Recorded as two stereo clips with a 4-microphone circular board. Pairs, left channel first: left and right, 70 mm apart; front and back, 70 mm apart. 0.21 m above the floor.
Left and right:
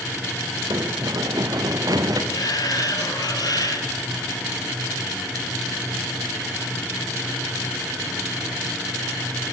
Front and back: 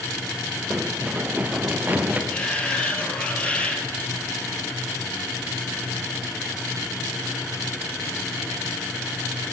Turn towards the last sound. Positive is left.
turn(degrees=70)